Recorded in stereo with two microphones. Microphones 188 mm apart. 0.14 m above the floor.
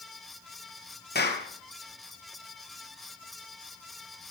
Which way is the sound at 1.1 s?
60° left (ahead or behind).